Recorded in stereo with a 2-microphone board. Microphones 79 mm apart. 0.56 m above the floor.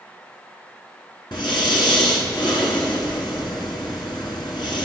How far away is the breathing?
About 1.7 m.